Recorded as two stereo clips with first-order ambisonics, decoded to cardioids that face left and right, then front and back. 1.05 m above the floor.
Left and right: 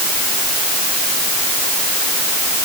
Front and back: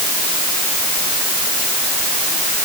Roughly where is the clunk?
No clunk in this recording.